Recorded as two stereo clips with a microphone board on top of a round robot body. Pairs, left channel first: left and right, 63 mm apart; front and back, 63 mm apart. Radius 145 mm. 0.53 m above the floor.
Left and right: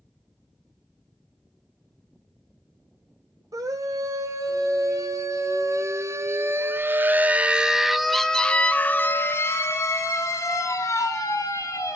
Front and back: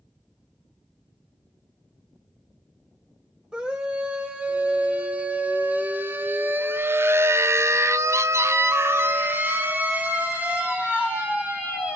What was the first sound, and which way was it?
A scream, 105° right.